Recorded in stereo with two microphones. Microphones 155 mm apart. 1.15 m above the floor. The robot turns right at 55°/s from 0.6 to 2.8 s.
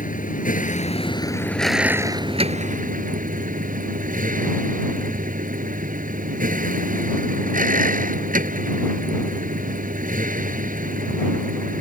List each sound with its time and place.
0.0 s a vehicle: 120° left; by 11.8 s 120° right